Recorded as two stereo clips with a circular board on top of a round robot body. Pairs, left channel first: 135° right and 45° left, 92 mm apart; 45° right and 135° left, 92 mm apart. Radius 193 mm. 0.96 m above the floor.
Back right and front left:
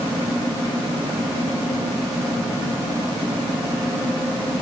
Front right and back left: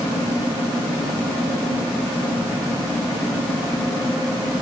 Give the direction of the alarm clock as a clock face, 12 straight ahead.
I don't hear an alarm clock.